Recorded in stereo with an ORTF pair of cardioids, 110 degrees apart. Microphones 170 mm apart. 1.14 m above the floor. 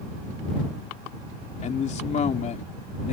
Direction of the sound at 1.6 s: 45° left.